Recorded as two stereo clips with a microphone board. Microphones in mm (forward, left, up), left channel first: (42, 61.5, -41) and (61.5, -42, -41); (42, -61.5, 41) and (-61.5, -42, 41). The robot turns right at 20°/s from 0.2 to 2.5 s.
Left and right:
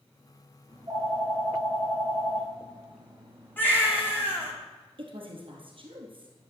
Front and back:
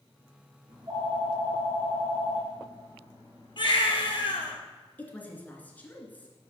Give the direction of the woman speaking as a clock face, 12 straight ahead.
3 o'clock.